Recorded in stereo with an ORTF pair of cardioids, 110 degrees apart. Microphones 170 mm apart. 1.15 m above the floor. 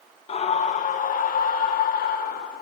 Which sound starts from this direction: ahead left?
A scream, at 0.3 s.